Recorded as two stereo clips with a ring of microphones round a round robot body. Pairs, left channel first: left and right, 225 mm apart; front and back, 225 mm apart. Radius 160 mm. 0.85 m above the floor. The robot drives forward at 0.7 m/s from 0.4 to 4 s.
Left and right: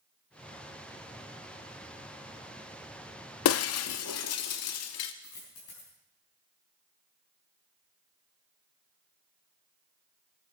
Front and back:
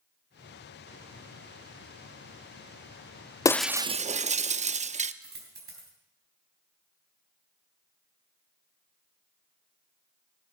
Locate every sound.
3.5 s breaking glass: 75° left, 0.5 m; by 5.1 s 120° left, 0.6 m
5.2 s a dropped coin: 140° left, 3.5 m